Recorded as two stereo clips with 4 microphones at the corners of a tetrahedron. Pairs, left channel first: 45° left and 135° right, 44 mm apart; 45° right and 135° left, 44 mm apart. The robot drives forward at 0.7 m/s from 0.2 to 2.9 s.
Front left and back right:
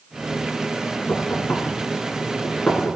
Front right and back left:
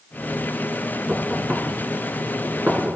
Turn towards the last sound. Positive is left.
turn(degrees=100)